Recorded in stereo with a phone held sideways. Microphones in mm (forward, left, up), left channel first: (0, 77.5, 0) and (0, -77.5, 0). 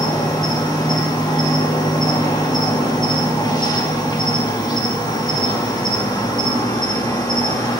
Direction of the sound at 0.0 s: 25° left (ahead or behind).